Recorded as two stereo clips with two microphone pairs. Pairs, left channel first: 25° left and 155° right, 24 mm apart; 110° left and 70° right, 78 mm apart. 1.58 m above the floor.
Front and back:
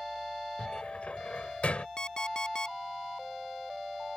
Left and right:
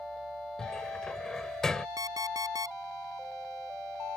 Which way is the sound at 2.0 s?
30° right.